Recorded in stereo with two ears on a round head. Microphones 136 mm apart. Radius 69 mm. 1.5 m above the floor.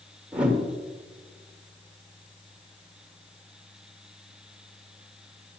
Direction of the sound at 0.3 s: 10° right (ahead or behind).